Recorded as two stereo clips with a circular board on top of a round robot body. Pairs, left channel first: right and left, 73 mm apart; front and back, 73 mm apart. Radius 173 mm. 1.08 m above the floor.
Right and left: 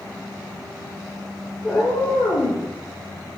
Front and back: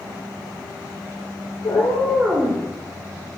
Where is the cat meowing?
5° right, 0.7 m; by 2.6 s 120° right, 1.2 m.